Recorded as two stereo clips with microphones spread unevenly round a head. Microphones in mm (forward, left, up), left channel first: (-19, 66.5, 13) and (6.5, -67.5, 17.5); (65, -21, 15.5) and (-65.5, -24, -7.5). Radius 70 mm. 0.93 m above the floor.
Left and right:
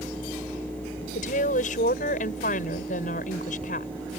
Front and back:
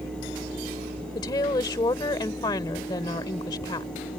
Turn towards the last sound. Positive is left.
turn(degrees=65)